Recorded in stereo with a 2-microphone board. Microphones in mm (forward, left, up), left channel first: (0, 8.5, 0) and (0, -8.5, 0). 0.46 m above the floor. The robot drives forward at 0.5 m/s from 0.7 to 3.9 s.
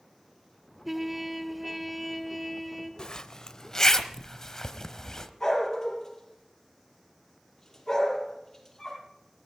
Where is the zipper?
45° left (ahead or behind), 0.6 m; by 5.3 s 25° left (ahead or behind), 1.0 m.